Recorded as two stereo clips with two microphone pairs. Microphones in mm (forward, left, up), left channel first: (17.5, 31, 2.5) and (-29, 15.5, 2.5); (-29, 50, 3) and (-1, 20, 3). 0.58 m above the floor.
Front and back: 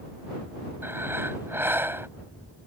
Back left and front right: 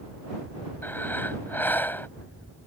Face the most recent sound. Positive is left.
turn(degrees=165)